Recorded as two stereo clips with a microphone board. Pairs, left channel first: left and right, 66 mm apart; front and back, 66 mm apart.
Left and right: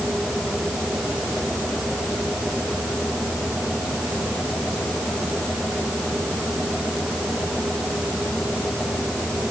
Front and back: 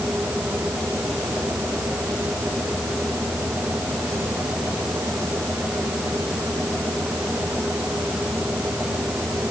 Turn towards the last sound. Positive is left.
No sound to turn to.